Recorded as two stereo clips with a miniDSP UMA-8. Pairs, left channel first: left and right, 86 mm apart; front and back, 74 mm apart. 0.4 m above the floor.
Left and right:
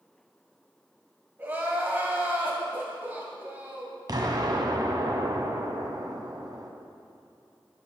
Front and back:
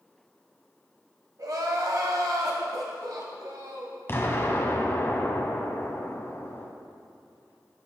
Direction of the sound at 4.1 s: 55° right.